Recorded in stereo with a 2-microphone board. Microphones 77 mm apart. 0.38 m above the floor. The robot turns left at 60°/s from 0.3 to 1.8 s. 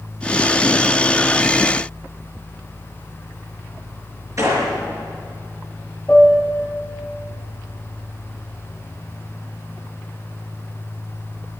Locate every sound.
4.4 s a gunshot: 45° right (ahead or behind), 4 m
6.1 s a piano: 15° left (ahead or behind), 2.5 m